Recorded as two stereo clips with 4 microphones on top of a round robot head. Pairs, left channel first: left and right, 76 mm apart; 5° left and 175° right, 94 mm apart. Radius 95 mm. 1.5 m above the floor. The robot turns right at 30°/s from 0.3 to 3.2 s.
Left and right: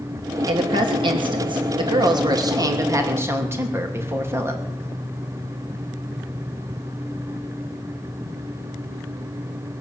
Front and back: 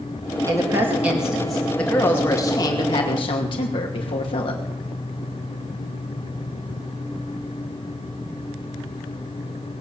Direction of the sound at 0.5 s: 115° right.